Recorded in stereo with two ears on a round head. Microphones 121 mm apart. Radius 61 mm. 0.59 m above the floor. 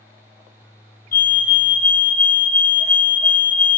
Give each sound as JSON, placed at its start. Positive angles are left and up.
{"t": 1.1, "sound": "a fire alarm", "side_deg": 75, "distance_m": 6.5}